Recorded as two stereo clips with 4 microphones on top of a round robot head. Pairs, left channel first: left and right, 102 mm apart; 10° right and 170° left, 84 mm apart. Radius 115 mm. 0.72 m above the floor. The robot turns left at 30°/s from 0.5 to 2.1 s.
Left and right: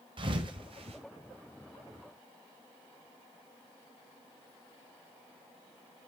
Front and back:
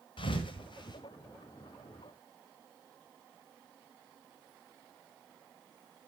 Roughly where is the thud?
Ahead right.